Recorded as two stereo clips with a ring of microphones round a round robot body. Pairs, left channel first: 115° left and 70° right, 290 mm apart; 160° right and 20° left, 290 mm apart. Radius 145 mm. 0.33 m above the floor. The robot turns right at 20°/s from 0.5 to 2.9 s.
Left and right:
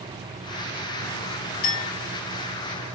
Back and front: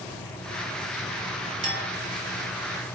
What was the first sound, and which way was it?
A clink, 90° left.